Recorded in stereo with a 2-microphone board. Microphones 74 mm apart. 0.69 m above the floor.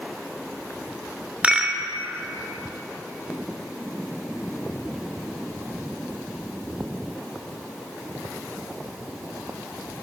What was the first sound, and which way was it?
A rattle, 20° right (ahead or behind).